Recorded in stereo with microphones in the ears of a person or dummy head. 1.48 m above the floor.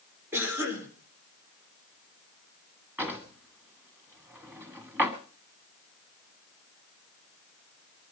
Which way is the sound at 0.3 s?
15° right (ahead or behind).